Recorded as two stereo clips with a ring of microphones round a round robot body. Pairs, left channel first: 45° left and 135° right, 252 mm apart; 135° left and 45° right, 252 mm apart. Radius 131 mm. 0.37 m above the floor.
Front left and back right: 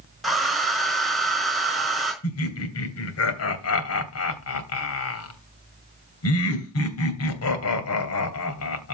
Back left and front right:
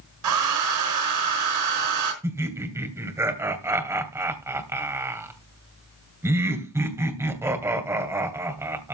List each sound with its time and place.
0.2 s a hair dryer: 45° right, 4.5 m
2.2 s laughter: 35° left, 2.5 m